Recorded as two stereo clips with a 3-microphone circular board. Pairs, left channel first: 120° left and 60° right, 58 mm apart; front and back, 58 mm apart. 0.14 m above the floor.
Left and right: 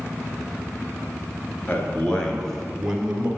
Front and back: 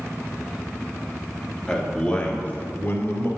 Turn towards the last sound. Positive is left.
turn(degrees=5)